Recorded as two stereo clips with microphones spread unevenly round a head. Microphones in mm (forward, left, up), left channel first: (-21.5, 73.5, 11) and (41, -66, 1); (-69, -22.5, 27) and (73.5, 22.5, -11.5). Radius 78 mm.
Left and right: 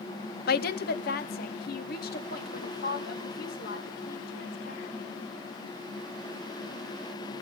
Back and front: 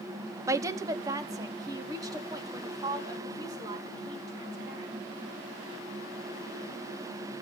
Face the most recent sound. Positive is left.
turn(degrees=85)